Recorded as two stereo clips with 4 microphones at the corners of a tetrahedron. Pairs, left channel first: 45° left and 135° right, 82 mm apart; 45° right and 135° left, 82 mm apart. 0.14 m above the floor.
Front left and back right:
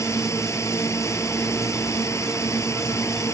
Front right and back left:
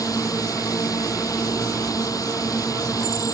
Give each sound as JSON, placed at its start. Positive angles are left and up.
{"t": 0.0, "sound": "a drone", "azimuth_deg": -5}